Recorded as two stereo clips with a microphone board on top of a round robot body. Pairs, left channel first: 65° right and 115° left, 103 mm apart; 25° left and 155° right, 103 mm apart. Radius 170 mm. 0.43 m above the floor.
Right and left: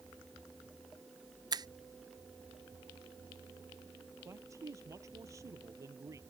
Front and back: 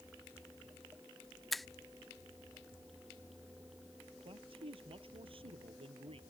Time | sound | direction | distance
1.5 | a finger snap | 110° left | ?
4.2 | a man speaking | 170° left | ?